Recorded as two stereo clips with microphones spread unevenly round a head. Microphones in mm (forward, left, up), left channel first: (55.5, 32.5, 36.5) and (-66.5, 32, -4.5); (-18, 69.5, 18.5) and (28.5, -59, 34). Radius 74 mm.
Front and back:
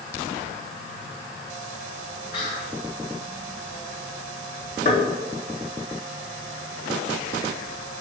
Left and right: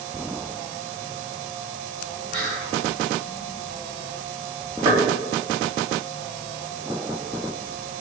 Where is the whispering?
15° right, 4 m.